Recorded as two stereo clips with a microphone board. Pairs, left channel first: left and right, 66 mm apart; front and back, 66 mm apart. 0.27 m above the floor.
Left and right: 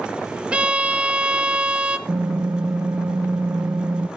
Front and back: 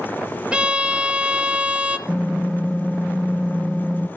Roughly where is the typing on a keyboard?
Right.